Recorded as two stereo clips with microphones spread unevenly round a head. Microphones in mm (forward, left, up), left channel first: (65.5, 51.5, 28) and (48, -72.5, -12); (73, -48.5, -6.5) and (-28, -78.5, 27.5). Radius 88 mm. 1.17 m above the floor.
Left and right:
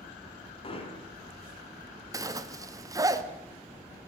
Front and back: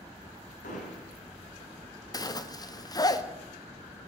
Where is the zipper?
35° right, 1.7 m.